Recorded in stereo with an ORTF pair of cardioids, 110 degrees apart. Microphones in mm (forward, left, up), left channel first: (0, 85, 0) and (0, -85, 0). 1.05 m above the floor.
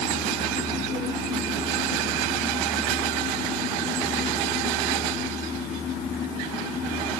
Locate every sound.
Only background noise.